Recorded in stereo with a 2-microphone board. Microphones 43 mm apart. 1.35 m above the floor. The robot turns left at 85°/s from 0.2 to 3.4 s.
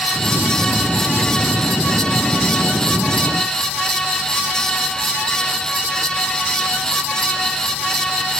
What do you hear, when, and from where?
Only background noise.